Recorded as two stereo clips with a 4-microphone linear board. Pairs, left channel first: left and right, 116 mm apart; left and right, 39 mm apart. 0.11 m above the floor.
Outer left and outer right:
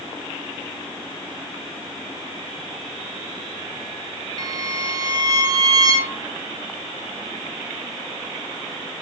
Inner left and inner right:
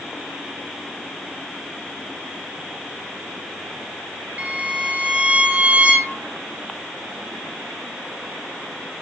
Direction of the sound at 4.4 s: 35° right (ahead or behind).